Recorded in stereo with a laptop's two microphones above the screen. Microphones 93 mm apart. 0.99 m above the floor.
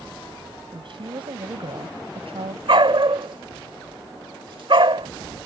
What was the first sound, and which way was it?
A woman speaking, 60° right (ahead or behind).